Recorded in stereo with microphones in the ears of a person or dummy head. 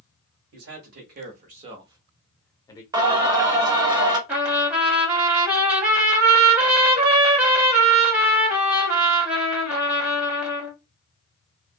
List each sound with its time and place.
0.5 s a man speaking: 75° right (ahead or behind), 1.1 m; by 2.8 s 15° left (ahead or behind), 0.8 m
2.9 s singing: 25° right (ahead or behind), 0.8 m
4.3 s a trumpet: 5° right (ahead or behind), 1.2 m